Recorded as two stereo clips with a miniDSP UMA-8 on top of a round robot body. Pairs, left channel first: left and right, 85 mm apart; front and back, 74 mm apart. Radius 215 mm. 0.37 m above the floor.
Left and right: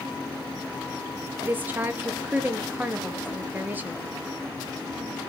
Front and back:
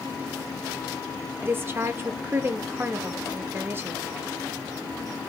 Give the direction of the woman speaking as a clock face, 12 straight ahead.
5 o'clock.